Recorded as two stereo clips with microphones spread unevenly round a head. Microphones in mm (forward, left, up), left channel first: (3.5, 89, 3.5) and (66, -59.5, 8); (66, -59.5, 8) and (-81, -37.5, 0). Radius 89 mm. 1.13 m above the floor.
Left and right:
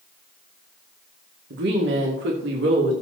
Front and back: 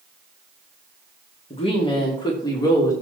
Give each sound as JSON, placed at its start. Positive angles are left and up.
{"t": 1.5, "sound": "a woman speaking", "azimuth_deg": -60, "distance_m": 2.5}